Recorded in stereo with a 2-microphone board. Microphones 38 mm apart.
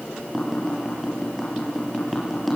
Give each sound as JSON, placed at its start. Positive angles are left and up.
{"t": 0.3, "sound": "tapping", "side_deg": 0, "distance_m": 5.5}